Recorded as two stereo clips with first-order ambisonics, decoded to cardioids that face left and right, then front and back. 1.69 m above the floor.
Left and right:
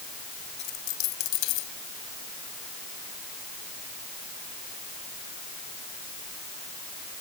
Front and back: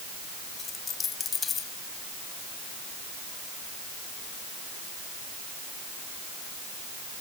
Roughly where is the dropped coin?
Left.